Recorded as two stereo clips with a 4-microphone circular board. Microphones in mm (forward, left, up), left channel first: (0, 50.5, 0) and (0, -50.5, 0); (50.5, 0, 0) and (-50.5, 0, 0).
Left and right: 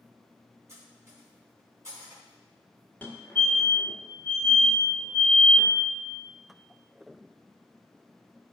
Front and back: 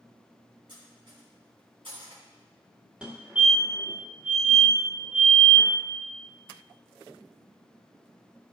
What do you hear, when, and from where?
0.7 s cutlery clinking: 150° right, 2.5 m
3.0 s a fire alarm: 125° left, 1.7 m